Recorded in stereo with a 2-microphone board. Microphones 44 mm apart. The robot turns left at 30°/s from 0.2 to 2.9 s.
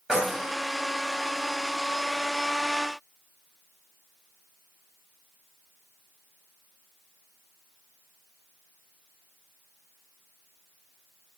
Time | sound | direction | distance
0.1 | keys jangling | 15° right (ahead or behind) | 0.8 m